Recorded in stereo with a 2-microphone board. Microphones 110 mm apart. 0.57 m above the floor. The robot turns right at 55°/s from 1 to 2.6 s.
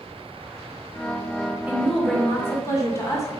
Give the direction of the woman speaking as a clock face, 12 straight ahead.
1 o'clock.